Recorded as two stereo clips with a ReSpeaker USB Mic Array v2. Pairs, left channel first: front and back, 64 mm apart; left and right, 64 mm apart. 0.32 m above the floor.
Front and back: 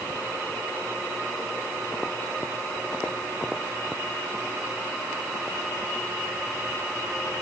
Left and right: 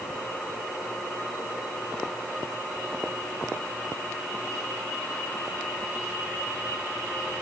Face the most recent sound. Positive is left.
No sound to turn to.